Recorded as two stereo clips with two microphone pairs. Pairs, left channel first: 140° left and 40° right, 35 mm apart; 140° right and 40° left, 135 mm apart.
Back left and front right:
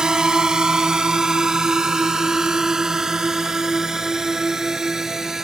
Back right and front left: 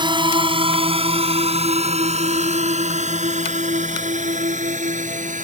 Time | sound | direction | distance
0.0 | a drone | 15° left | ?